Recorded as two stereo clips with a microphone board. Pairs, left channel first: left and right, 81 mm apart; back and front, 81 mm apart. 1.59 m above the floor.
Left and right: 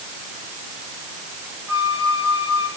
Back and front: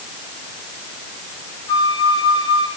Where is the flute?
150° right, 8.5 m.